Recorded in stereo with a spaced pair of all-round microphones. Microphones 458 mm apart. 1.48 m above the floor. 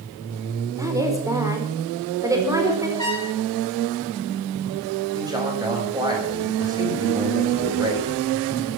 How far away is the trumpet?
About 10 m.